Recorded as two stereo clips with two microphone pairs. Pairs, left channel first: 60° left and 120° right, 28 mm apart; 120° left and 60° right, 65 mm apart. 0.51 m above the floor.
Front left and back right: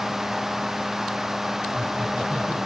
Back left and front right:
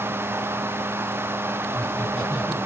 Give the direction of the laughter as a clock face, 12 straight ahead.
6 o'clock.